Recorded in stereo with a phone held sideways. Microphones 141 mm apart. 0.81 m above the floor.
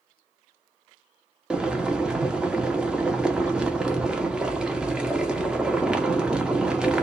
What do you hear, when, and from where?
1.5 s boiling: 5° right (ahead or behind), 0.7 m